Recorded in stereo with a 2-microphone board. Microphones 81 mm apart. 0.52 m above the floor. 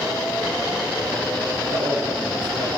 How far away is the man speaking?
About 6.5 m.